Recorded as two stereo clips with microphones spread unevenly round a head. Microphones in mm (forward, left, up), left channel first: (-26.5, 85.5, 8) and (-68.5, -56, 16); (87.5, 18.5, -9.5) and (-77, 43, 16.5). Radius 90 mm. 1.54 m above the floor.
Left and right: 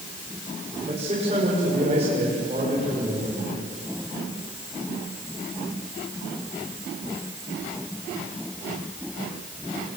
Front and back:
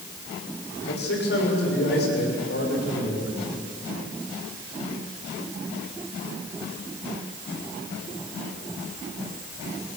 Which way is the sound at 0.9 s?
45° right.